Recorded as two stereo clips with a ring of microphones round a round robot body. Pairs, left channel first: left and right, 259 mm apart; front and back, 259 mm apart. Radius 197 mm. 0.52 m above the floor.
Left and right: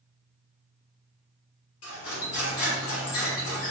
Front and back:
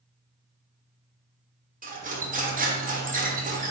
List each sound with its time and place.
1.8 s cutlery clinking: 120° left, 1.2 m